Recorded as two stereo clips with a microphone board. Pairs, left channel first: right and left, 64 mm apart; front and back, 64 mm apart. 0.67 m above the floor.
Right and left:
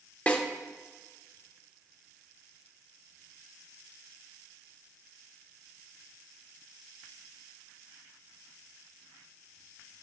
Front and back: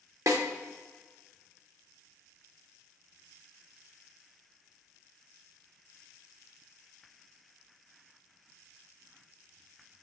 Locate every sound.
0.3 s a snare drum: 155° right, 1.2 m